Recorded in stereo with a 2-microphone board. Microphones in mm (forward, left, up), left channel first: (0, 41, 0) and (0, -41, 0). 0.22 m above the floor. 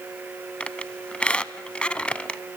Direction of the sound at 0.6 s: 15° left (ahead or behind).